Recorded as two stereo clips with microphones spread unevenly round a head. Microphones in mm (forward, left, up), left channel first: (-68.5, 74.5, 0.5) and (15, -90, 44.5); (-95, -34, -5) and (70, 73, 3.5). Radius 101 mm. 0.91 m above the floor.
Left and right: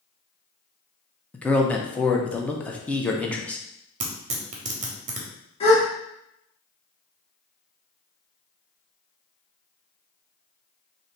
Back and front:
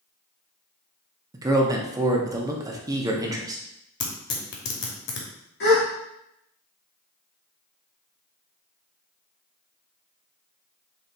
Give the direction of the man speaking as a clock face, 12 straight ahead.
9 o'clock.